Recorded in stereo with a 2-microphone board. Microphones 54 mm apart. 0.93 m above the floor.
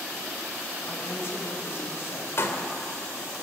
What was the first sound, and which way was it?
A woman speaking, 50° left (ahead or behind).